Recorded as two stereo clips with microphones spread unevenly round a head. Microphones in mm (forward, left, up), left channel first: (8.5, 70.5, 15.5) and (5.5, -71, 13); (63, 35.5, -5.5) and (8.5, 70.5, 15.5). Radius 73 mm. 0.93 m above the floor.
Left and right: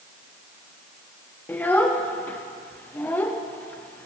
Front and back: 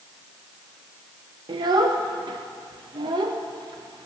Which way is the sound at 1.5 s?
165° left.